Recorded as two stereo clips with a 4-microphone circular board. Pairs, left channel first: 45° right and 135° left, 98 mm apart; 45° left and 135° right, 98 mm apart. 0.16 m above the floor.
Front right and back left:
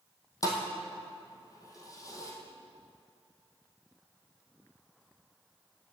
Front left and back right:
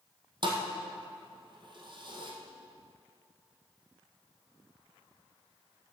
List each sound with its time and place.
0.4 s a thud: 100° right, 1.8 m